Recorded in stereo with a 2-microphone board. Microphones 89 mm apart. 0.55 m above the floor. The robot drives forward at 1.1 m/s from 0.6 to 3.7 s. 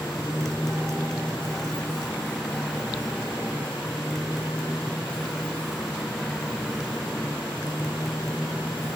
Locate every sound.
0.0 s a motorcycle: 5° left (ahead or behind)